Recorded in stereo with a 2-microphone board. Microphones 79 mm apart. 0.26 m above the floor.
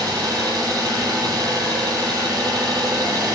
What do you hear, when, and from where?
0.0 s an engine running: 60° right (ahead or behind), 0.9 m